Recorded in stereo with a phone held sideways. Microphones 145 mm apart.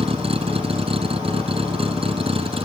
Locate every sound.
0.0 s a vehicle: 45° right (ahead or behind)